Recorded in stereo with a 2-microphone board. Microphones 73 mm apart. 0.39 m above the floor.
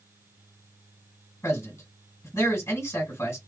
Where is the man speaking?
40° left (ahead or behind), 2 m.